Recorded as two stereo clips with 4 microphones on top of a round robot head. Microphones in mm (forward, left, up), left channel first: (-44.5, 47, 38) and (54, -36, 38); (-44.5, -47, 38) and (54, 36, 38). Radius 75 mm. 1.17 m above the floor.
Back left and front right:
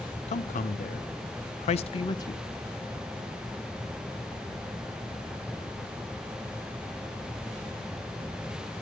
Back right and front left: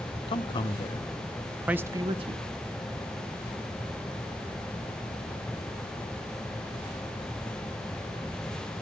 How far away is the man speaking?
About 1.1 m.